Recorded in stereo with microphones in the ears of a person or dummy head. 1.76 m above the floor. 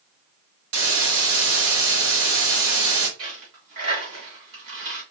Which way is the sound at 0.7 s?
75° right (ahead or behind).